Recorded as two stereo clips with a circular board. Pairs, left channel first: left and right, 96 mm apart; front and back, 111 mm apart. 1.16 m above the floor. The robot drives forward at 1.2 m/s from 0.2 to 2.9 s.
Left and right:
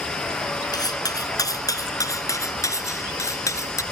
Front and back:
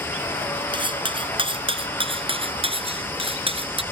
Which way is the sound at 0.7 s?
140° left.